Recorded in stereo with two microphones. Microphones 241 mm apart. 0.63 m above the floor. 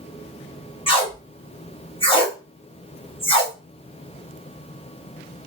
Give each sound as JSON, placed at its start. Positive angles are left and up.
{"t": 0.9, "sound": "tape being pulled", "side_deg": 25, "distance_m": 1.2}